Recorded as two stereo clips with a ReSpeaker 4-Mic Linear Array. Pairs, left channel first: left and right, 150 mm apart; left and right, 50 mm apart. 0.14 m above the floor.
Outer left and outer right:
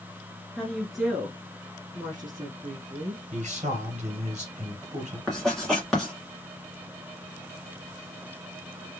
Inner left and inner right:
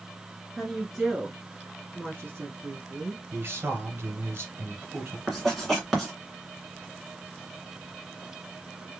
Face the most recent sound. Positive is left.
turn(degrees=5)  # may be behind; listen again after turning